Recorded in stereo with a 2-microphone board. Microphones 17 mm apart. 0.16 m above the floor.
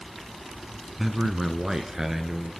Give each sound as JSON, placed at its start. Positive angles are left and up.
{"t": 1.0, "sound": "a man speaking", "side_deg": -10, "distance_m": 1.3}